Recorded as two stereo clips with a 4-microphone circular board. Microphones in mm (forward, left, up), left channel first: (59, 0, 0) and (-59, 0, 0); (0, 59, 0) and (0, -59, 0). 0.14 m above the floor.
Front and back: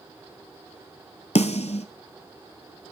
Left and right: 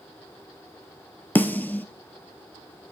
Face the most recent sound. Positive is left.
turn(degrees=15)